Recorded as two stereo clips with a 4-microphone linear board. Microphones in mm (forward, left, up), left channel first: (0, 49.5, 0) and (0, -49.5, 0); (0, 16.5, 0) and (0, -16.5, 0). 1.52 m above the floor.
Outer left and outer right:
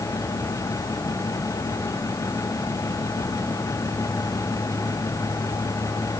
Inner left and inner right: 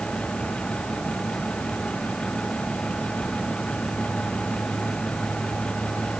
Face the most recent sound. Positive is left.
No sound to turn to.